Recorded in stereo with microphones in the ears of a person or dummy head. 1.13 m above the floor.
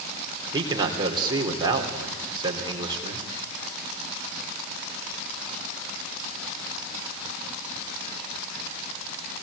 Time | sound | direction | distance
0.5 | a man speaking | 25° right (ahead or behind) | 3.5 m